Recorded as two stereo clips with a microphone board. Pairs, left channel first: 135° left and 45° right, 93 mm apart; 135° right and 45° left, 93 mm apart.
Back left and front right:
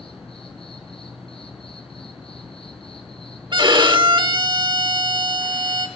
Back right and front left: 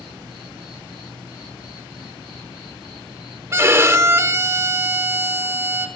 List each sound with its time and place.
0.0 s an insect: 130° left, 4.5 m
3.5 s a violin: 15° right, 0.9 m